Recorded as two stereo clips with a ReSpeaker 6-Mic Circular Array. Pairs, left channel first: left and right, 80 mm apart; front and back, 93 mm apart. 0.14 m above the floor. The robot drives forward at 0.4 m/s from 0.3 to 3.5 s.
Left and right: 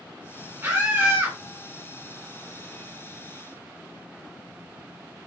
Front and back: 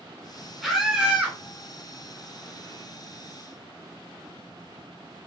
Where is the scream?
90° right, 1.1 m; by 1.4 s 125° right, 1.2 m.